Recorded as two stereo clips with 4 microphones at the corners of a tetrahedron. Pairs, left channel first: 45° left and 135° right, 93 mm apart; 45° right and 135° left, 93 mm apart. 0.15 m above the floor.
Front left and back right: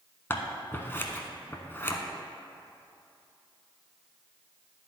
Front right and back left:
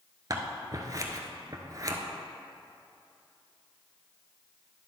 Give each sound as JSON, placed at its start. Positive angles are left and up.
{"t": 0.3, "sound": "scissors", "azimuth_deg": 105, "distance_m": 0.8}